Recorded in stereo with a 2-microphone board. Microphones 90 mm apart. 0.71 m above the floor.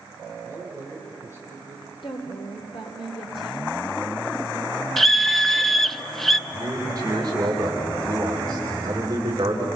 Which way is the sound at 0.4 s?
35° left (ahead or behind).